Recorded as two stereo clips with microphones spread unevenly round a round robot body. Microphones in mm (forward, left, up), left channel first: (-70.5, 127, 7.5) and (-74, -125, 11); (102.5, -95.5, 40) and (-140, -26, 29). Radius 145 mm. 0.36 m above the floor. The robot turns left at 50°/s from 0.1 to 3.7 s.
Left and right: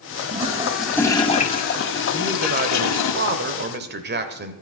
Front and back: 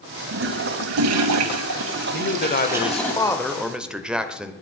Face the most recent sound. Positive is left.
turn(degrees=-115)